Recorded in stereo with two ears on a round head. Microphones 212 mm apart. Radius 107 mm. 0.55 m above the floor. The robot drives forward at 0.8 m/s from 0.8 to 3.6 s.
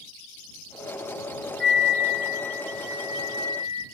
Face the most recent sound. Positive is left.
turn(degrees=25)  # may be behind; listen again after turning